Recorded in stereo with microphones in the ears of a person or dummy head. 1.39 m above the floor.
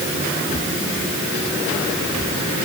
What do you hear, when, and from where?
Only background noise.